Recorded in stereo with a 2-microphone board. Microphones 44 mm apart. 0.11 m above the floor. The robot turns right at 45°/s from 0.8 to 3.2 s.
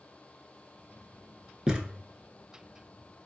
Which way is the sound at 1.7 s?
10° right (ahead or behind).